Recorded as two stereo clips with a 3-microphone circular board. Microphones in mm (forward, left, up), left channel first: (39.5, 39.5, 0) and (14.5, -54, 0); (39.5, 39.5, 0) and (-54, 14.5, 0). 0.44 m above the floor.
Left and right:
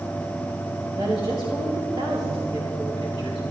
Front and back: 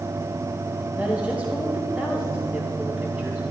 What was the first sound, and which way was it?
A woman speaking, 90° right.